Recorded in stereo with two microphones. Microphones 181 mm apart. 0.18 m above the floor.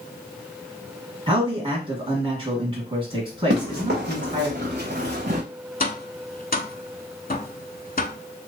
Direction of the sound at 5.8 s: 55° left (ahead or behind).